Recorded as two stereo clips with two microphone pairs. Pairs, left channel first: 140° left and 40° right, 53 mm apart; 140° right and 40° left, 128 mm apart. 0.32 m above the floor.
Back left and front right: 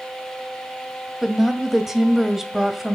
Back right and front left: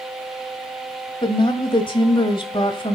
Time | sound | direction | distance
1.2 | a woman speaking | 120° right | 1.6 m